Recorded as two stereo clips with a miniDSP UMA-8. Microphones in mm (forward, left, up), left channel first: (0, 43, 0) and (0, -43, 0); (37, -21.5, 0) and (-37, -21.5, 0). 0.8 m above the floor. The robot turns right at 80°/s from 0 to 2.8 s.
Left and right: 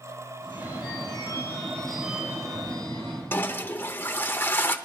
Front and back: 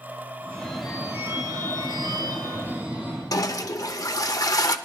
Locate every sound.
0.4 s a phone ringing: 55° left, 4 m; by 3.4 s 110° right, 4 m
3.3 s a toilet flushing: 30° left, 0.7 m